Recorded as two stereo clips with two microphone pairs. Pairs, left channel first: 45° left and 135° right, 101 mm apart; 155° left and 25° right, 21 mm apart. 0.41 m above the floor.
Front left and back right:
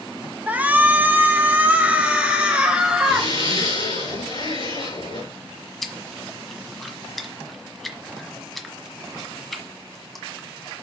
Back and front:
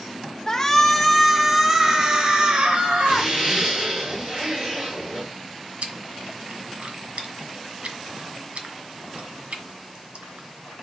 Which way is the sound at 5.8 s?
40° right.